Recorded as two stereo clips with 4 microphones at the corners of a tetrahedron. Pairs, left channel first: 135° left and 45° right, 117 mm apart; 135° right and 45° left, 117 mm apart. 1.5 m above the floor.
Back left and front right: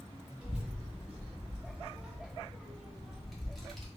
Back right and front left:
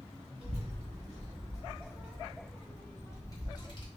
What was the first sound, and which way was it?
A child speaking, 35° left.